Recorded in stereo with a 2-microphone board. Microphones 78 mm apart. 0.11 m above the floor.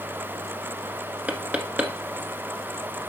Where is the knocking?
20° right (ahead or behind), 1.1 m.